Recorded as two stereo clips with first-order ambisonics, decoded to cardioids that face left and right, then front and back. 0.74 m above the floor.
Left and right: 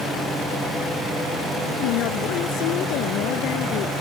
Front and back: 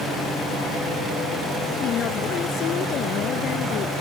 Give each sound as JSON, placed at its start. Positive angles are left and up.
{"t": 1.8, "sound": "a woman speaking", "azimuth_deg": 55}